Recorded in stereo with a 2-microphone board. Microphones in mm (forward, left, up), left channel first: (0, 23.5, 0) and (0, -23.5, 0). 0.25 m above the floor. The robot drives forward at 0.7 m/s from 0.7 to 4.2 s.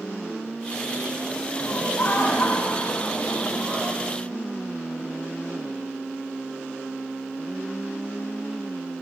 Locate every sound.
1.6 s laughter: 50° left (ahead or behind), 2 m